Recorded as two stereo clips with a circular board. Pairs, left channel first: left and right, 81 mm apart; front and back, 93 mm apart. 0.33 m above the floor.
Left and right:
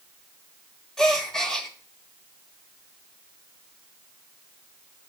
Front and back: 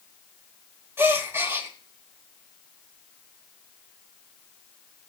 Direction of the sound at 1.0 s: 165° left.